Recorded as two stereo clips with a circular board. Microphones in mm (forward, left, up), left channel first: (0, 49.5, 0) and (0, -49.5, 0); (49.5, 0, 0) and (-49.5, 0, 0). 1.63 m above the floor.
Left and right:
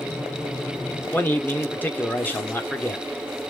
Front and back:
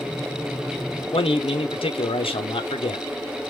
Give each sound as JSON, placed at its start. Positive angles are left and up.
{"t": 1.1, "sound": "a man speaking", "azimuth_deg": 20, "distance_m": 0.7}